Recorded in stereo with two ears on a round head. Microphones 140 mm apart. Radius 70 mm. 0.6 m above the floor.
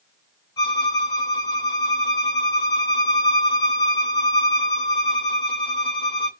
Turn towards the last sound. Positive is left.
turn(degrees=30)  # may be behind; listen again after turning